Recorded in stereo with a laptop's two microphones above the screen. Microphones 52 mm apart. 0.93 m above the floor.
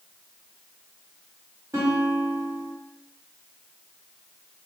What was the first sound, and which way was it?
A guitar, 80° right.